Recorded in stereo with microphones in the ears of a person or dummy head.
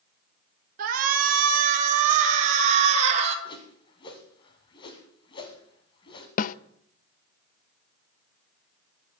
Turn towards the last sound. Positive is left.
turn(degrees=50)  # may be behind; listen again after turning